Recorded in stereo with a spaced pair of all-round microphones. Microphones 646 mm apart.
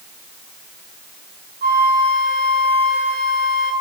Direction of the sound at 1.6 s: 50° right (ahead or behind).